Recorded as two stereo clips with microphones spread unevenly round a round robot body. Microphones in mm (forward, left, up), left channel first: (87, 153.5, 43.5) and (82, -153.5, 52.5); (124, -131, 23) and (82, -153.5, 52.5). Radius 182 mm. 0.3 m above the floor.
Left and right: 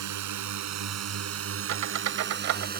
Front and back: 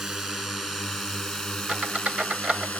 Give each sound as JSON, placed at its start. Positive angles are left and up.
{"t": 0.0, "sound": "a drone", "azimuth_deg": -70}
{"t": 1.7, "sound": "a squeak", "azimuth_deg": -65}